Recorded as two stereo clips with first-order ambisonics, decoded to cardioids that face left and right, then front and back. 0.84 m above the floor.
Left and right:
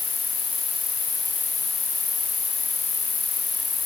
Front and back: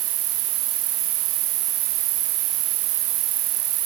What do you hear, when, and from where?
0.0 s an insect: 160° left